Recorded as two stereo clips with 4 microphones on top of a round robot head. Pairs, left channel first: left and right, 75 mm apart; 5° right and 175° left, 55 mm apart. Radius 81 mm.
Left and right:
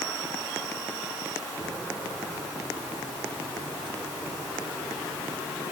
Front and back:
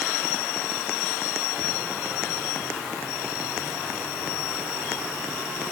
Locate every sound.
Only background noise.